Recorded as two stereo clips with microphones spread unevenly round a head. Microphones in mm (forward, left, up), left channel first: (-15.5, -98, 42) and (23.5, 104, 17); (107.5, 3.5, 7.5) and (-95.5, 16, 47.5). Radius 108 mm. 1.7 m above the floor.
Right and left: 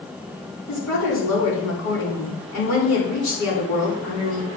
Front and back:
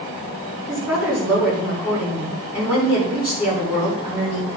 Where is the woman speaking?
100° right, 5 m.